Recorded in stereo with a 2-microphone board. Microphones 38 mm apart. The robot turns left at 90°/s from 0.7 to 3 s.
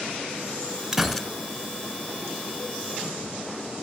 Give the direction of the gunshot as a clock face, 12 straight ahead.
6 o'clock.